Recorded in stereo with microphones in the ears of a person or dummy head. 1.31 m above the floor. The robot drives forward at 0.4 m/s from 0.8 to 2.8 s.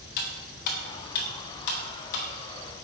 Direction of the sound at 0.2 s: 55° left (ahead or behind).